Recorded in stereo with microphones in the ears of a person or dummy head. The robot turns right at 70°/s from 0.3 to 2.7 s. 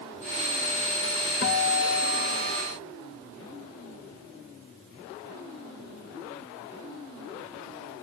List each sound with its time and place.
1.4 s a guitar: 60° left, 1.7 m; by 2.6 s 140° left, 1.7 m